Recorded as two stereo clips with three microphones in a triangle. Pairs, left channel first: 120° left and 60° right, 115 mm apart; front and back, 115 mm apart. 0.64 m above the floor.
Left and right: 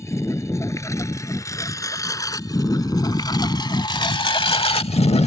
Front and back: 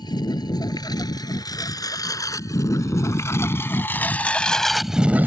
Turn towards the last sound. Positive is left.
turn(degrees=110)